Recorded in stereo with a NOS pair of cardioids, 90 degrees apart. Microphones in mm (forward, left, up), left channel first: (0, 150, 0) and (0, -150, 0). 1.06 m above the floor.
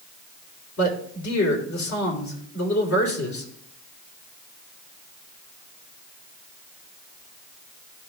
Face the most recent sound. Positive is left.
turn(degrees=70)